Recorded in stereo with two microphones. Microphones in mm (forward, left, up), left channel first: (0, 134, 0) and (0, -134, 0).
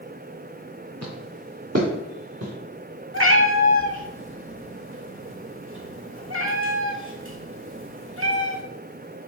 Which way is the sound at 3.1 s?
50° right (ahead or behind).